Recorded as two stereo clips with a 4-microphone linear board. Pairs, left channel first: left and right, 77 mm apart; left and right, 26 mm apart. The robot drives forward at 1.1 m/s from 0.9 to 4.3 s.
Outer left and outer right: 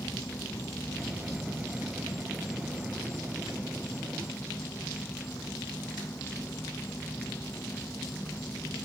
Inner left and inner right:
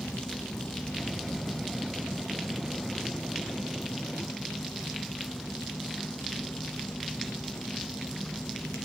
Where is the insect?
40° left (ahead or behind); by 8.9 s 30° left (ahead or behind).